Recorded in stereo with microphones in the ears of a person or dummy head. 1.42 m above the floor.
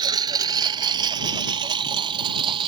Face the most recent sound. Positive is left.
turn(degrees=-25)  # may be behind; listen again after turning